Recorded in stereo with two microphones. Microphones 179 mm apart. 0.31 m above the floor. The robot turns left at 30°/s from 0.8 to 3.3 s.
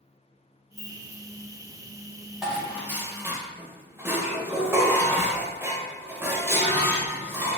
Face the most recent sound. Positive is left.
turn(degrees=-10)  # may be behind; listen again after turning